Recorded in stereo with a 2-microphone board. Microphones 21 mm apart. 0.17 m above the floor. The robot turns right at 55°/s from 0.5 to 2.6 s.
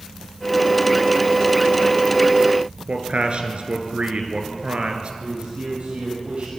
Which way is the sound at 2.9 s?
60° right (ahead or behind).